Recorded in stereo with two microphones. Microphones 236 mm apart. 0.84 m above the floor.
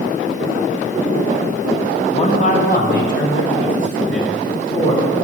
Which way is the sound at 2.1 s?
25° left (ahead or behind).